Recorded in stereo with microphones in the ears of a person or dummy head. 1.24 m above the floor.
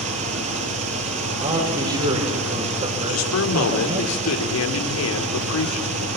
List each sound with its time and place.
0.0 s an engine running: 40° right (ahead or behind), 7 m
1.4 s a man speaking: 35° right (ahead or behind), 6 m
3.1 s a man speaking: 85° left, 4 m